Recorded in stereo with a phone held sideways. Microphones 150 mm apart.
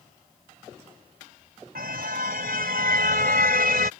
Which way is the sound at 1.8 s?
80° right.